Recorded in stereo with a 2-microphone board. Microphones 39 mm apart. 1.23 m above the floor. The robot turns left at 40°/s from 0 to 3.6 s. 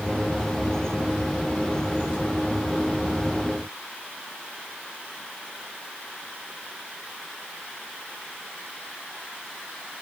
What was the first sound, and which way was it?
Only background noise.